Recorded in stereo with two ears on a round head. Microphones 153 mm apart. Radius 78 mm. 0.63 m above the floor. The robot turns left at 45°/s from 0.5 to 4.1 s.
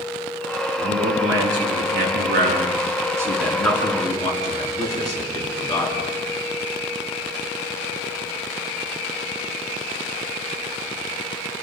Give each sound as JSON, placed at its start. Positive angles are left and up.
{"t": 0.8, "sound": "a man speaking", "azimuth_deg": -55, "distance_m": 7.0}